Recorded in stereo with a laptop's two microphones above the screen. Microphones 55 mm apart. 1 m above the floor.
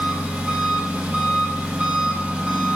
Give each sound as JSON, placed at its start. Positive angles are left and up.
{"t": 0.0, "sound": "an engine running", "side_deg": -20, "distance_m": 0.8}